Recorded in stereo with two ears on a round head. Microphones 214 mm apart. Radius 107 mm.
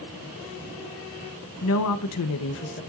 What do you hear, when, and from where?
1.6 s a woman speaking: 55° left (ahead or behind), 1.0 m; by 2.8 s 45° left (ahead or behind), 1.3 m